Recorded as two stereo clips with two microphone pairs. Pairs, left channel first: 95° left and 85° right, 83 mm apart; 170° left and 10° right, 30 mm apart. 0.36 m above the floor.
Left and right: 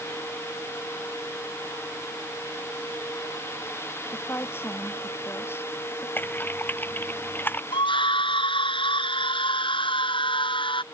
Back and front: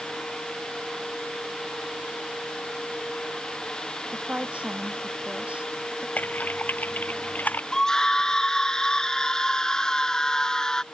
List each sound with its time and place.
4.1 s a woman speaking: 30° left
6.2 s typing on a keyboard: 160° left
7.7 s a scream: 100° left